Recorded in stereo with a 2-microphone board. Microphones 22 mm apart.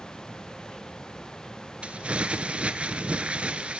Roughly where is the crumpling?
Right.